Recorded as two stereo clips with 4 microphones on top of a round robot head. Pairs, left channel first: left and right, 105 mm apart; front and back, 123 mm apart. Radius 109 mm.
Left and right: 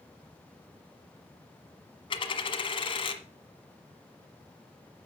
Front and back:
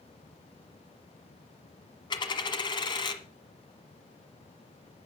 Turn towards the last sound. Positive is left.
turn(degrees=55)